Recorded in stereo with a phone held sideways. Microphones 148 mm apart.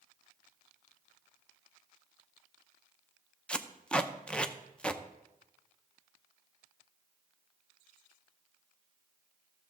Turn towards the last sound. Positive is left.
turn(degrees=10)  # may be behind; listen again after turning